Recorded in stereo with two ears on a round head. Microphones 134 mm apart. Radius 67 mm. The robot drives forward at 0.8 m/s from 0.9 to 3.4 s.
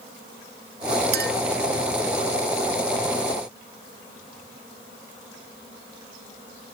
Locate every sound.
1.1 s a clink: 75° right (ahead or behind)